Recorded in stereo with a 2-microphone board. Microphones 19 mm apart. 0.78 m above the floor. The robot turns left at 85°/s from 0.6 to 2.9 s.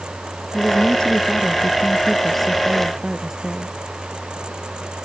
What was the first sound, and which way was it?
A woman speaking, 155° left.